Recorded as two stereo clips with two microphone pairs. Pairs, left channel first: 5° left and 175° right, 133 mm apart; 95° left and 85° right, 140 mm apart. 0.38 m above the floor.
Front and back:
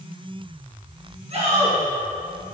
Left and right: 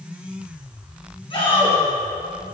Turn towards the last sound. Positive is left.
turn(degrees=145)